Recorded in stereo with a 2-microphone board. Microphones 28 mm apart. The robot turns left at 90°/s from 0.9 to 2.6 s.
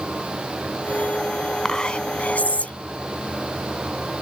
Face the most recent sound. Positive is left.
turn(degrees=75)